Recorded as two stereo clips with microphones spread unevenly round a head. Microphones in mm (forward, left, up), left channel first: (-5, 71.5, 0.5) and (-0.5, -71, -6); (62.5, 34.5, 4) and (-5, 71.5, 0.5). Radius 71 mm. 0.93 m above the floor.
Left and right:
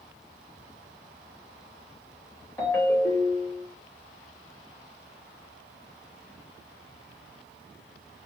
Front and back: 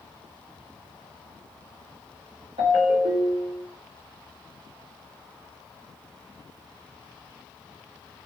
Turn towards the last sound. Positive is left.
turn(degrees=165)